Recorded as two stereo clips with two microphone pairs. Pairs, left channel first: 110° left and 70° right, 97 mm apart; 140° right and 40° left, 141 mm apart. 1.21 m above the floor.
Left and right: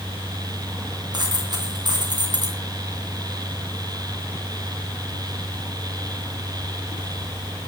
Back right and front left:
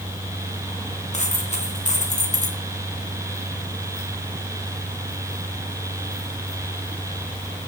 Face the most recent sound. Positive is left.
turn(degrees=-110)